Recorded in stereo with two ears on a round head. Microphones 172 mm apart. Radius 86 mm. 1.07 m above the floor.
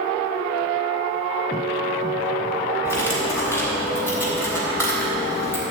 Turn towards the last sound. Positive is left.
turn(degrees=-15)  # may be behind; listen again after turning